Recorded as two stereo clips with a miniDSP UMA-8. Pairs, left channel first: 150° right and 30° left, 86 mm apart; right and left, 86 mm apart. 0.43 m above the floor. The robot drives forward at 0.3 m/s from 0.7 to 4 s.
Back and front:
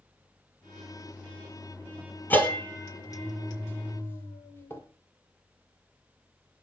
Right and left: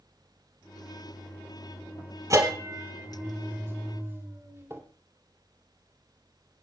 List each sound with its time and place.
2.3 s a bell: 140° left, 1.8 m; by 4.8 s 150° left, 2 m